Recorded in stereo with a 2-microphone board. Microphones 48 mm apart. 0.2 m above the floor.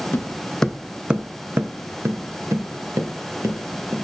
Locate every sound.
0.1 s footsteps: 40° left (ahead or behind), 0.7 m; by 4.0 s 80° right, 2.5 m